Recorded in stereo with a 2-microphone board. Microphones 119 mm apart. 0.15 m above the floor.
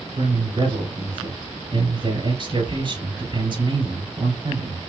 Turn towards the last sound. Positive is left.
turn(degrees=-45)  # may be behind; listen again after turning